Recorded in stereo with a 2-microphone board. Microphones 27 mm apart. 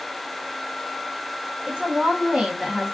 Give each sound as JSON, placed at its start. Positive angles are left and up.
{"t": 1.7, "sound": "a woman speaking", "side_deg": -35, "distance_m": 1.2}